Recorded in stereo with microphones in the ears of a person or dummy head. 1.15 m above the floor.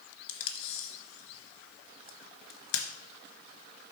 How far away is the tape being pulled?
About 1.2 m.